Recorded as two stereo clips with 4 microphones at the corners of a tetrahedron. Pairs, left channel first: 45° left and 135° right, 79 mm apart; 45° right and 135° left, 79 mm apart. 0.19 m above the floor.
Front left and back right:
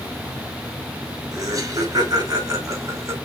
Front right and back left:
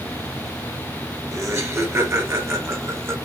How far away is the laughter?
About 3.5 m.